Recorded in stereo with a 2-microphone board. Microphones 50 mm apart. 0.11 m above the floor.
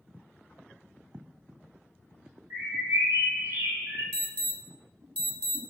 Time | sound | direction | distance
2.5 | a bird | 65° right (ahead or behind) | 1.1 m
4.1 | an alarm | 30° left (ahead or behind) | 1.0 m